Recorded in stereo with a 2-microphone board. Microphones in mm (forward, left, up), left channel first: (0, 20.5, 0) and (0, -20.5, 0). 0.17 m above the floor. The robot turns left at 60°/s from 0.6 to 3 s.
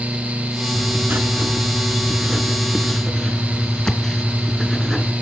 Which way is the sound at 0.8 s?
60° right.